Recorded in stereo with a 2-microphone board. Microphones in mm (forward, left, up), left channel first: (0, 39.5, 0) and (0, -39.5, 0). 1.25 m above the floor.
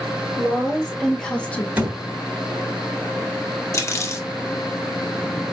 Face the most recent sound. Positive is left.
turn(degrees=35)  # may be behind; listen again after turning